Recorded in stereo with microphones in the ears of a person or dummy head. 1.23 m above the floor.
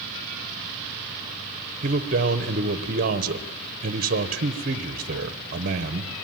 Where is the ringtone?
No ringtone in this recording.